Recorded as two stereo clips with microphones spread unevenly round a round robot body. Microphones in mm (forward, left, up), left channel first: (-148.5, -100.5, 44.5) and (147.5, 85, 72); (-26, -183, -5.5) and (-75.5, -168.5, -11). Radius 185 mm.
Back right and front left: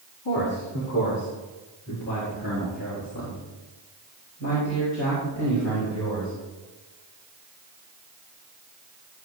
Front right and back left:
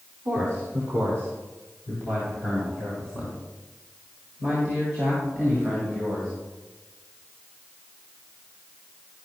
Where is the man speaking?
Straight behind, 2.5 m; by 6.3 s 160° left, 6 m.